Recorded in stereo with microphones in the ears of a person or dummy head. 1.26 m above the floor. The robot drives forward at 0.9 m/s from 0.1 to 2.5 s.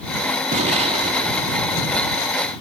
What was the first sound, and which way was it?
An explosion, 35° right (ahead or behind).